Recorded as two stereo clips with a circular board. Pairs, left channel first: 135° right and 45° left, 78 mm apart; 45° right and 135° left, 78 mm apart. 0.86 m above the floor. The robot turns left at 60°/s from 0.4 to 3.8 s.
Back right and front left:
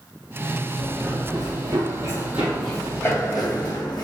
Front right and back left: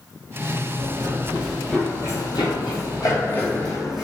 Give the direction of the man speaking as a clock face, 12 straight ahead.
I don't hear a man speaking.